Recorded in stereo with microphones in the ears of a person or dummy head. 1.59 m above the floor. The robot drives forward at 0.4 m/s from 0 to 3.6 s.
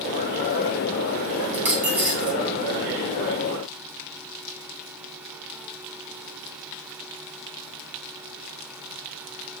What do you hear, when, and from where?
1.5 s a dropped coin: 5° right (ahead or behind), 1.9 m